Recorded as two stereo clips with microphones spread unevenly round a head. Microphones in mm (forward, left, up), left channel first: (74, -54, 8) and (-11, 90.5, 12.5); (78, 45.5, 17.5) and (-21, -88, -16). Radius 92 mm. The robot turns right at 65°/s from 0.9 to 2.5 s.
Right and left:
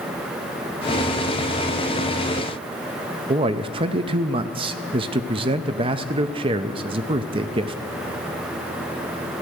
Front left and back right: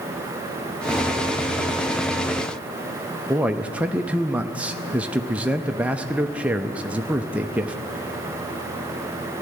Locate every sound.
3.3 s a man speaking: 165° left, 0.6 m